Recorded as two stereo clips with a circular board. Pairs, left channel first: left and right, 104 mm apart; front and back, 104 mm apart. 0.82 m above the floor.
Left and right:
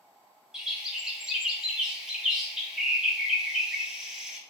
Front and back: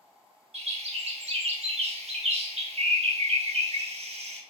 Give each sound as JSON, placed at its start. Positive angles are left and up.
{"t": 0.5, "sound": "a bird", "azimuth_deg": -175, "distance_m": 0.5}